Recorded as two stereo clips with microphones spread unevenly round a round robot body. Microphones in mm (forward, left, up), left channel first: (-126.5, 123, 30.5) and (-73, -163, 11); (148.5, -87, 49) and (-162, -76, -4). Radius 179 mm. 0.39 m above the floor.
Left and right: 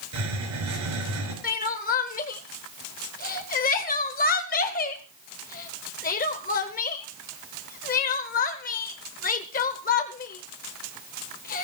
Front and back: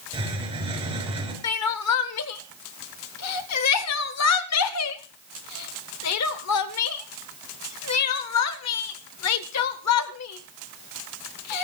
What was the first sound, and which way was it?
A hiss, 110° right.